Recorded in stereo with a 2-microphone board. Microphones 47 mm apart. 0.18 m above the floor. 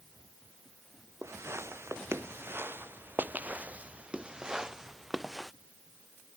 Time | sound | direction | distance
1.2 | footsteps | 75° right (ahead or behind) | ?